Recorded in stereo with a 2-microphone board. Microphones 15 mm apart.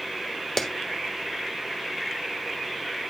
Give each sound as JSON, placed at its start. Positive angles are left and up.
{"t": 0.6, "sound": "a clap", "side_deg": 25, "distance_m": 1.1}